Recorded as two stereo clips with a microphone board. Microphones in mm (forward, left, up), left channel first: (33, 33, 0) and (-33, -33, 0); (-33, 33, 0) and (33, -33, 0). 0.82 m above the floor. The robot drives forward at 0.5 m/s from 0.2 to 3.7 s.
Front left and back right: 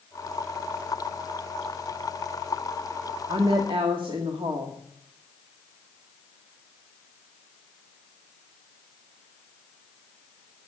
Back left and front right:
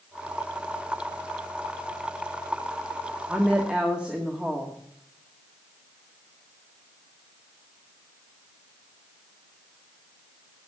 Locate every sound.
3.3 s a woman speaking: 115° right, 1.6 m; by 4.8 s 125° right, 1.7 m